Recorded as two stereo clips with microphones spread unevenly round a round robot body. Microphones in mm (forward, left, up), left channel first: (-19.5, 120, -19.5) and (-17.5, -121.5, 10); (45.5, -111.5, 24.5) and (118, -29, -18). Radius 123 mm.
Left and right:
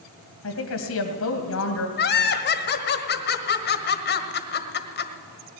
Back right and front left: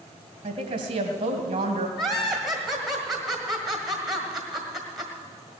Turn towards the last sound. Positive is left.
turn(degrees=125)